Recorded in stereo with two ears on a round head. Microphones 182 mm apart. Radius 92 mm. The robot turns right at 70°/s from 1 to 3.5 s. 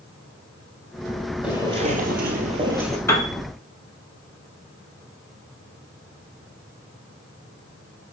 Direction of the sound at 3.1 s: 15° left (ahead or behind).